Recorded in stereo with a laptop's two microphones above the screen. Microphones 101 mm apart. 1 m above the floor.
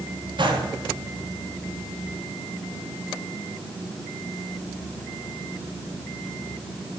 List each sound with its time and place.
0.4 s a gunshot: 50° right (ahead or behind), 1.2 m